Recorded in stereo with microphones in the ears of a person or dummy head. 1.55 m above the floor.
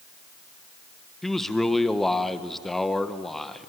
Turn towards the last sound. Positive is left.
turn(degrees=5)  # may be behind; listen again after turning